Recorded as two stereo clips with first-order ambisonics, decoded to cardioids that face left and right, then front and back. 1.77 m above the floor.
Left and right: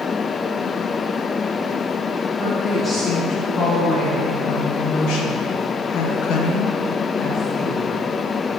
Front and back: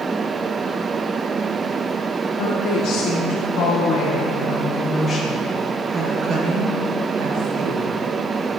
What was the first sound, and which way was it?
A woman speaking, 30° left.